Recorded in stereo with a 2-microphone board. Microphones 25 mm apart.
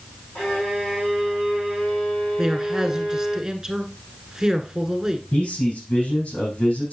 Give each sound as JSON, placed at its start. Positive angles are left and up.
{"t": 0.3, "sound": "a violin", "side_deg": 70, "distance_m": 4.5}
{"t": 2.4, "sound": "a man speaking", "side_deg": -20, "distance_m": 1.1}
{"t": 5.3, "sound": "a man speaking", "side_deg": 65, "distance_m": 6.0}